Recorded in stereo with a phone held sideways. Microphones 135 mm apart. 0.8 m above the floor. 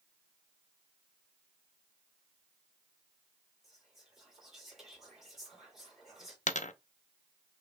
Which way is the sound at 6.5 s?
65° left (ahead or behind).